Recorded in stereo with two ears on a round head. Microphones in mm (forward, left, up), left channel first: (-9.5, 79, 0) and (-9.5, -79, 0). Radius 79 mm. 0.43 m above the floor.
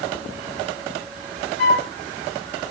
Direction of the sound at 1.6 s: 50° left (ahead or behind).